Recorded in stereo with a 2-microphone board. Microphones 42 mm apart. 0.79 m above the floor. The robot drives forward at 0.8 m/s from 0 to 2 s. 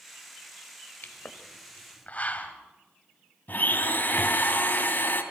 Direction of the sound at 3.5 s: 45° left (ahead or behind).